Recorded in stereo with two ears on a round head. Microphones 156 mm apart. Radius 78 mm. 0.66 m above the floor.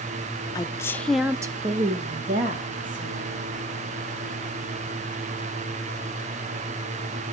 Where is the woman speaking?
20° left (ahead or behind), 1.0 m; by 3.5 s 45° right (ahead or behind), 2.0 m.